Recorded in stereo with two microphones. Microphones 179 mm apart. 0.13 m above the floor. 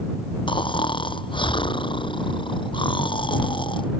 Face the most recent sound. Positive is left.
turn(degrees=25)  # may be behind; listen again after turning